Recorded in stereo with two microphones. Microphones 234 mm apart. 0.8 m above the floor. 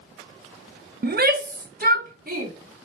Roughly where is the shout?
Right.